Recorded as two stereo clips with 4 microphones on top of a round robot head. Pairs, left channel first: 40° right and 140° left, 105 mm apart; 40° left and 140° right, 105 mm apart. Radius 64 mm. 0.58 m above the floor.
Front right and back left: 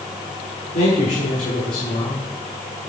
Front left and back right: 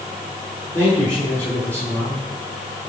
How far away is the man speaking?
About 9 m.